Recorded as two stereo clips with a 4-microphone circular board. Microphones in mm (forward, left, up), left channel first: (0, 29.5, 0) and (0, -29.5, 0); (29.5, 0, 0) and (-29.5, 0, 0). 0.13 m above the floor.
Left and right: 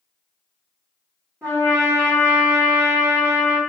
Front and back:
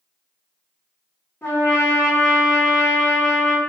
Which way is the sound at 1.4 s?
45° right.